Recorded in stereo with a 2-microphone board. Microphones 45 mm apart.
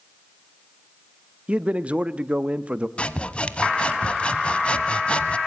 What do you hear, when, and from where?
1.5 s a man speaking: 25° right (ahead or behind), 0.9 m
3.0 s sawing: 20° left (ahead or behind), 0.9 m